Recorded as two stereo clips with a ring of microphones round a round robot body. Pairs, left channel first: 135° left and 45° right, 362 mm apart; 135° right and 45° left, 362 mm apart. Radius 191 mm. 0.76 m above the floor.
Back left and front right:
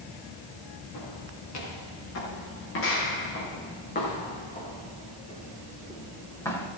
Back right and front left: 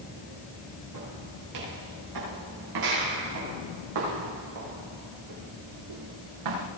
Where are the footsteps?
90° left, 8.5 m; by 6.7 s 50° left, 8 m.